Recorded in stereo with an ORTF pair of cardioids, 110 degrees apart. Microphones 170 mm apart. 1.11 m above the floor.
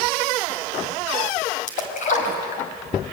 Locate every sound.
1.7 s a splash: 50° left, 4.5 m